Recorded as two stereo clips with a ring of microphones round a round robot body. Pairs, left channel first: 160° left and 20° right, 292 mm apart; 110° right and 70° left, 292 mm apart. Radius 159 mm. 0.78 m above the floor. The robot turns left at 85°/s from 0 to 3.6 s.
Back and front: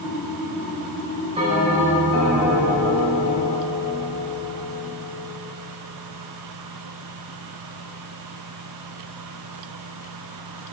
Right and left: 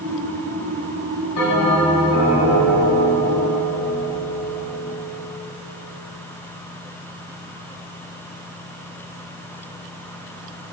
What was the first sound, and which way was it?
A bell, 90° right.